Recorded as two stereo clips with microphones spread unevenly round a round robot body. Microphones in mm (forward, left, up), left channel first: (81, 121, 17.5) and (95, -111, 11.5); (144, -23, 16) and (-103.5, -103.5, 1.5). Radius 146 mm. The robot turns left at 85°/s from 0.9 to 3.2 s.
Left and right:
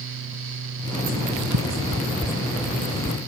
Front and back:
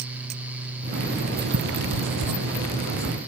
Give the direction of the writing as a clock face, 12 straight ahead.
3 o'clock.